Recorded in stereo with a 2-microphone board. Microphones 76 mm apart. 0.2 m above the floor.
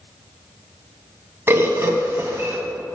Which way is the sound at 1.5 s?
30° right (ahead or behind).